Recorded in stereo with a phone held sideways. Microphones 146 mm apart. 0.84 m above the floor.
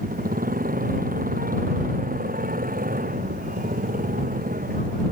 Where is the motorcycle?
75° right (ahead or behind).